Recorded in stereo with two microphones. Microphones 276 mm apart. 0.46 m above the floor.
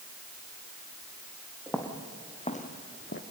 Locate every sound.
1.7 s footsteps: 5° left (ahead or behind), 3.5 m; by 3.2 s 45° left (ahead or behind), 2.5 m